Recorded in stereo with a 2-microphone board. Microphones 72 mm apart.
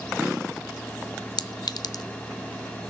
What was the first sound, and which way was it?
A clink, 65° left (ahead or behind).